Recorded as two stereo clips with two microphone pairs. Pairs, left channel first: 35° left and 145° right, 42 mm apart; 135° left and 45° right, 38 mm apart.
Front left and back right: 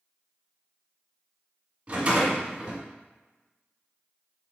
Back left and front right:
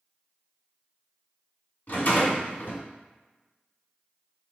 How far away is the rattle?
About 1.8 m.